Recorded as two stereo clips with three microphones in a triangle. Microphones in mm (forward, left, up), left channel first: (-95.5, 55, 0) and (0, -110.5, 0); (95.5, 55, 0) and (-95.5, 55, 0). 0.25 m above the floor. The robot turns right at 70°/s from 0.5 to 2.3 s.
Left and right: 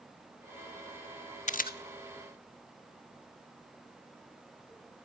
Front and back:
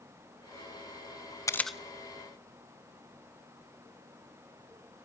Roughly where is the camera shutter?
Left.